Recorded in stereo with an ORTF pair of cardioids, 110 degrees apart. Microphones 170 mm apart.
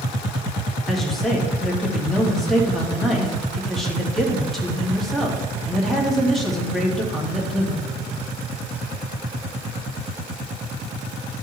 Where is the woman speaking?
Straight ahead, 2.5 m.